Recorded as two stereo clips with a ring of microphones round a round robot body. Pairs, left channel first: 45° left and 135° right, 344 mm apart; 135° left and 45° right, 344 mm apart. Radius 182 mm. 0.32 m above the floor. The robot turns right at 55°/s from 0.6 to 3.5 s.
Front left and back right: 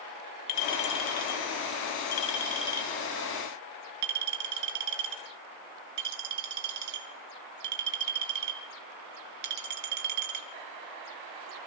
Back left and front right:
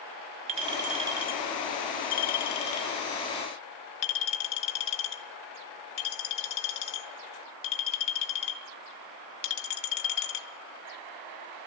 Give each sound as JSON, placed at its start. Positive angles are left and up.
{"t": 0.5, "sound": "a clink", "azimuth_deg": 5, "distance_m": 1.5}